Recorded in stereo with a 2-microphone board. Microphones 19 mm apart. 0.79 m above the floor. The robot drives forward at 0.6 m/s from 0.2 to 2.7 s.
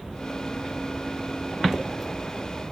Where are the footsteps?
35° right (ahead or behind), 0.9 m; by 2.7 s 20° left (ahead or behind), 1.4 m.